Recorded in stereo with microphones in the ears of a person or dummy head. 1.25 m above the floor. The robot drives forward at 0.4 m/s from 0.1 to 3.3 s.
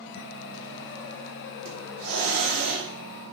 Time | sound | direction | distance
1.6 | a hiss | 75° right (ahead or behind) | 3 m